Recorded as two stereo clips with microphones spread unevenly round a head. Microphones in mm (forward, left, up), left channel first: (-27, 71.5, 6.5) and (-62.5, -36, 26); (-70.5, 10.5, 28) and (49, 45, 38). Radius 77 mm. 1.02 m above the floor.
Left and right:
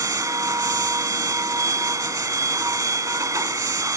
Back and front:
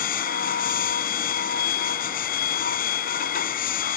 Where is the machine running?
170° right.